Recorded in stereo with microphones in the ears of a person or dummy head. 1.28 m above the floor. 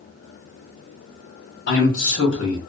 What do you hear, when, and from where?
1.7 s a man speaking: 80° left, 1.4 m